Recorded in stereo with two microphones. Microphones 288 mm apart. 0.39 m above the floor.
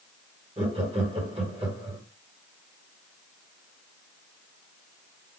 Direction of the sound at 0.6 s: 20° right (ahead or behind).